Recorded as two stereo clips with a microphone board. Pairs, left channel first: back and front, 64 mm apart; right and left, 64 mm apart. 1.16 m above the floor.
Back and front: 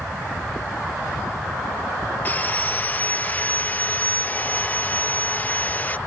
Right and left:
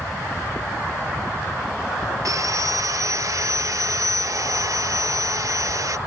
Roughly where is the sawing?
Behind left.